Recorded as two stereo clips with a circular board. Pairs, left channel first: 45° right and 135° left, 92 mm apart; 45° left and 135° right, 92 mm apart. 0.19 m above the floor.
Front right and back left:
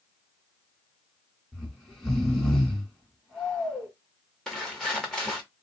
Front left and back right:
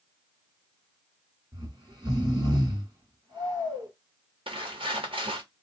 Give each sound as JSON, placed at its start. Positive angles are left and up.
{"t": 1.5, "sound": "snoring", "azimuth_deg": -130, "distance_m": 1.4}
{"t": 4.5, "sound": "footsteps", "azimuth_deg": -130, "distance_m": 1.2}